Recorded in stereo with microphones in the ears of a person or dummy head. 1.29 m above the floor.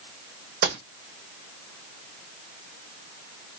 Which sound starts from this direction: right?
A gunshot, at 0.6 s.